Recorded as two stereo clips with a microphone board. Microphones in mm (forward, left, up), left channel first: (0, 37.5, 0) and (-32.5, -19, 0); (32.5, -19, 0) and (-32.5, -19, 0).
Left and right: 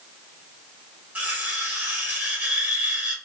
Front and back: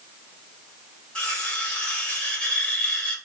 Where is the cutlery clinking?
70° right, 1.2 m.